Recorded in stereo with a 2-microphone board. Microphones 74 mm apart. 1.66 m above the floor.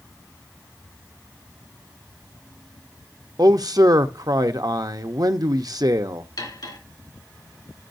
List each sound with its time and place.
3.4 s a man speaking: 60° right (ahead or behind), 0.8 m
6.4 s cutlery clinking: 70° left (ahead or behind), 2.5 m